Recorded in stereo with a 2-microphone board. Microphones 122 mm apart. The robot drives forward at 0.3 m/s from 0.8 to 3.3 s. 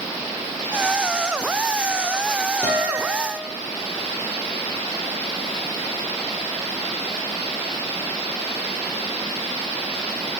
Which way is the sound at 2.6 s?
20° left (ahead or behind).